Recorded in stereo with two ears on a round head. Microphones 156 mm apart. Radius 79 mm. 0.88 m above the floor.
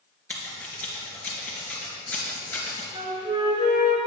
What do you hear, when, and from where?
0.3 s scissors: 10° left (ahead or behind), 3 m
2.9 s a flute: 30° right (ahead or behind), 2 m